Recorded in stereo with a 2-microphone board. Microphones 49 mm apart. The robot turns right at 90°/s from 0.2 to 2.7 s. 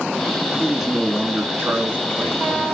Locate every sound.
0.6 s a man speaking: 160° left, 2 m; by 2.6 s 15° right, 2 m